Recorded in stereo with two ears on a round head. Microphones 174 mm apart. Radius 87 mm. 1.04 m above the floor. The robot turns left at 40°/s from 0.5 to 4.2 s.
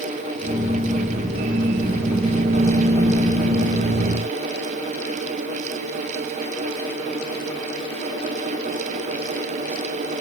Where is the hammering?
I don't hear hammering.